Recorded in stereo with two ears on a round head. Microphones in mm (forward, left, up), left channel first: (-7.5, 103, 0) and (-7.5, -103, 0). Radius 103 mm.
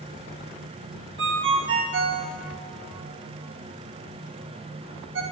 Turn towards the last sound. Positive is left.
turn(degrees=-60)  # may be behind; listen again after turning